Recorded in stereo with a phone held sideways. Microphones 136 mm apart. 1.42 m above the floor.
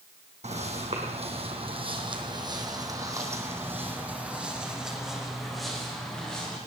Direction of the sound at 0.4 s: 55° right (ahead or behind).